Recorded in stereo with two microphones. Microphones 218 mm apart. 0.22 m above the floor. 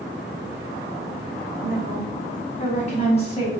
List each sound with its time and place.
1.6 s a woman speaking: 40° left (ahead or behind), 2.5 m; by 3.5 s 25° left (ahead or behind), 1.5 m